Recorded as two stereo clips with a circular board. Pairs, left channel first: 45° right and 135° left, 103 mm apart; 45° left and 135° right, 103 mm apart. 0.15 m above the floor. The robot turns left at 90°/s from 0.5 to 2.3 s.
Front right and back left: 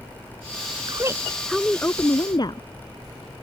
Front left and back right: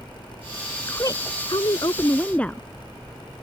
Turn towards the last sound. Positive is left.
turn(degrees=-30)